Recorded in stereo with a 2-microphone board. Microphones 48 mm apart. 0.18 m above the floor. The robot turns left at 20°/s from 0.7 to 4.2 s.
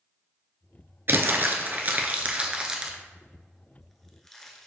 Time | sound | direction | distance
1.1 | crumpling | 50° right (ahead or behind) | 0.6 m